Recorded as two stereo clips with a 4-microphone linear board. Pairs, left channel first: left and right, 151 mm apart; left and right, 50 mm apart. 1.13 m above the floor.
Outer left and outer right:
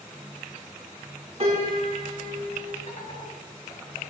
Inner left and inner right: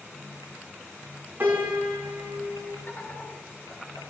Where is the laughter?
50° left (ahead or behind), 3.5 m.